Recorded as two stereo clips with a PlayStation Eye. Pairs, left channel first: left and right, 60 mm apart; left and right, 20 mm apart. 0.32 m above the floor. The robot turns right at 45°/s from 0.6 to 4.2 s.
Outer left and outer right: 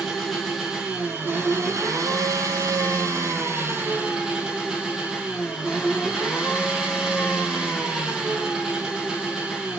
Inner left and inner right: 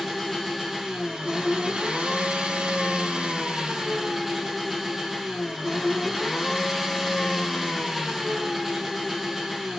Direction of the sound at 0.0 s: Straight behind.